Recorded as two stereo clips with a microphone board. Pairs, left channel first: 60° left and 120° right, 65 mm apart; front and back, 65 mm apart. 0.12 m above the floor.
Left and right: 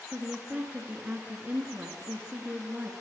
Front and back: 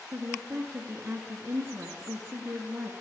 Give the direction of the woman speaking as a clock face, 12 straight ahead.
5 o'clock.